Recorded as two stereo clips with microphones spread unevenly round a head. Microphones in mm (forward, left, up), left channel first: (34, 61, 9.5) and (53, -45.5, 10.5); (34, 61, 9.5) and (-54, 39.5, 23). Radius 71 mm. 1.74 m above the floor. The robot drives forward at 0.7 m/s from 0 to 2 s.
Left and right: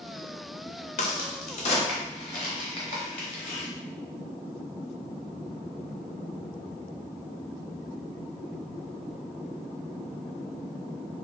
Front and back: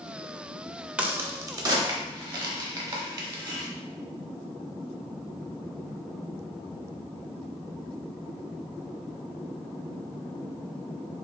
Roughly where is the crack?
Behind left.